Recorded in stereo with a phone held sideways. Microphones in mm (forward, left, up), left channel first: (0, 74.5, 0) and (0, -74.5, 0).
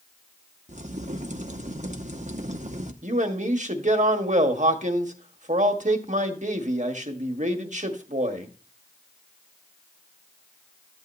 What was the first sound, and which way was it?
A crack, 55° right (ahead or behind).